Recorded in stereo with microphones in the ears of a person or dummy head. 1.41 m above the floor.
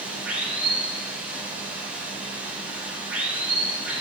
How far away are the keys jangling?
No keys jangling in this recording.